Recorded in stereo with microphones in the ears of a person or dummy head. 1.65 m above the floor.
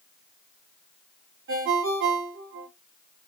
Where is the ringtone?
70° right (ahead or behind), 2.5 m.